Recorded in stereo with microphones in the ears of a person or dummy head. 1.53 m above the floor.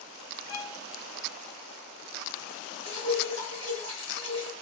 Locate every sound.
0.5 s a violin: 50° left (ahead or behind), 0.6 m
2.9 s dripping: 75° right (ahead or behind), 1.5 m